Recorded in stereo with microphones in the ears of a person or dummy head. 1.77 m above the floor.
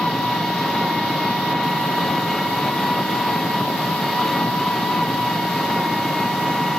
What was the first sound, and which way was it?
An engine running, centre (ahead or behind).